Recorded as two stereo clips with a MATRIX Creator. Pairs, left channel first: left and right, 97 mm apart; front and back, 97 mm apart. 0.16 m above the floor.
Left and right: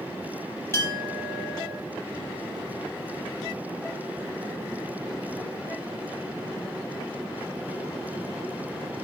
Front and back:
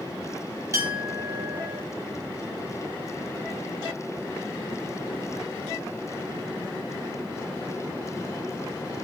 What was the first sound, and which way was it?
A clink, 140° left.